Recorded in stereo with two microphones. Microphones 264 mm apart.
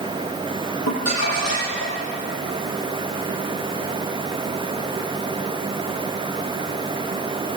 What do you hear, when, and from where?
0.9 s crumpling: 75° left (ahead or behind), 9 m